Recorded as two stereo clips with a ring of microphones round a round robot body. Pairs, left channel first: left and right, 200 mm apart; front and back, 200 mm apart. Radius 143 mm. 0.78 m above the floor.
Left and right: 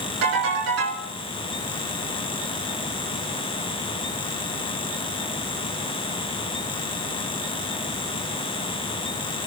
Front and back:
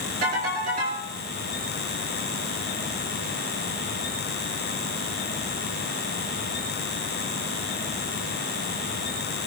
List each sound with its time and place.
0.2 s a ringtone: 115° right, 6 m